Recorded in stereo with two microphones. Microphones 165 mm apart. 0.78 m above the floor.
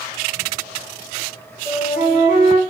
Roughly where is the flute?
Left.